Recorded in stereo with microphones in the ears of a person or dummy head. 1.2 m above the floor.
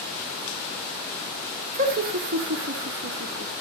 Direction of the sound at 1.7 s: 35° right (ahead or behind).